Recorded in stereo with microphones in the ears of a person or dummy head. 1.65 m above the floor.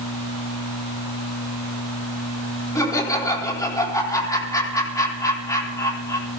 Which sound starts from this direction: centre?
Laughter, at 2.8 s.